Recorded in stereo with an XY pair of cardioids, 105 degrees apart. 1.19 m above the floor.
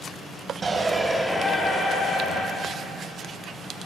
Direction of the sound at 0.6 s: 35° right.